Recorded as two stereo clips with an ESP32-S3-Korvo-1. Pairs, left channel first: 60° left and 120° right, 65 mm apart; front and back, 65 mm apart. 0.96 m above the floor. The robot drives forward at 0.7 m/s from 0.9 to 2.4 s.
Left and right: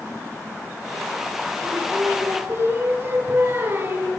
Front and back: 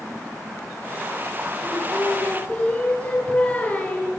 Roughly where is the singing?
Ahead right.